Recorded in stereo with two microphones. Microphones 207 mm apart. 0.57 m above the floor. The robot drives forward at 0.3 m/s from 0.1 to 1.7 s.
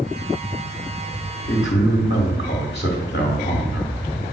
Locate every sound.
1.5 s a man speaking: 60° left (ahead or behind), 1.5 m